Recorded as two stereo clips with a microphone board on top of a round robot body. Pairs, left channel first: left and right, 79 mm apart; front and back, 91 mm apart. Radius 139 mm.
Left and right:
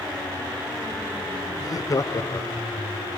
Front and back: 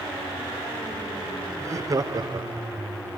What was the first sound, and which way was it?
Laughter, 125° left.